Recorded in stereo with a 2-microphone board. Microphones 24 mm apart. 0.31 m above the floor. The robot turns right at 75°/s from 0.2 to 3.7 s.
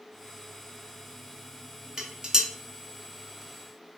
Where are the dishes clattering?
20° right (ahead or behind), 0.5 m.